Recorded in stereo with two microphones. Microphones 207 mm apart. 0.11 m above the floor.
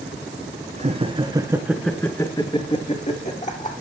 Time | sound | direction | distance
0.8 | laughter | 35° right (ahead or behind) | 1.4 m